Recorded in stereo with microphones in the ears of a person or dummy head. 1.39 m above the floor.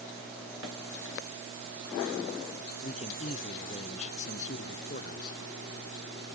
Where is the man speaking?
35° left (ahead or behind); by 5.4 s 45° left (ahead or behind).